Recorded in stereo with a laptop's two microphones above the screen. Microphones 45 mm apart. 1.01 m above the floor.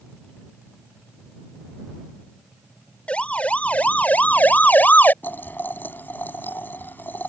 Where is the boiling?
45° left (ahead or behind).